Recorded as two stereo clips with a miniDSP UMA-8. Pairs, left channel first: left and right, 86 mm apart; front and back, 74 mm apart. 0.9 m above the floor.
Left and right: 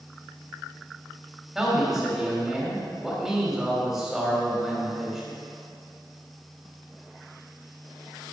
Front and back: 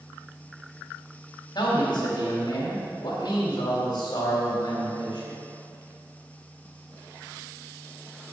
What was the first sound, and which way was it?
A man speaking, 10° right.